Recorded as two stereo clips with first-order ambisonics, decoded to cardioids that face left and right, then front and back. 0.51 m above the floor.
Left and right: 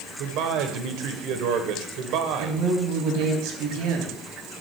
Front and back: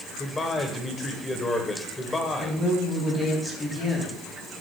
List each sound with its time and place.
0.2 s a man speaking: 75° right, 1.6 m
2.4 s a woman speaking: 75° right, 3 m